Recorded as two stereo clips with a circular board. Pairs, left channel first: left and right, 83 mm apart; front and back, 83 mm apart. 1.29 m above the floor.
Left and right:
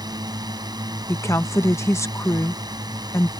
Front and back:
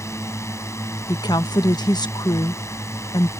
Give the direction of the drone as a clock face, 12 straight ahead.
2 o'clock.